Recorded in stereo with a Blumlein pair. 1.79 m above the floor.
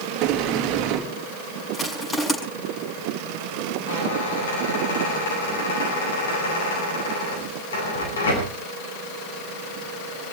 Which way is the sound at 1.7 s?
20° left.